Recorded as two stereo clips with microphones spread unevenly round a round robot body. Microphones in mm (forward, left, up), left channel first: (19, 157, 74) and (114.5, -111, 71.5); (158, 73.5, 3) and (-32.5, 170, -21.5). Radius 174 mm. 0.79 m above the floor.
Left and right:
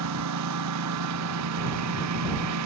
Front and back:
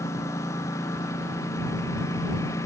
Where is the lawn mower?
110° right.